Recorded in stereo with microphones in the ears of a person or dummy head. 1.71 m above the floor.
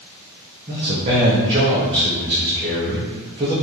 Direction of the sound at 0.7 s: 25° right (ahead or behind).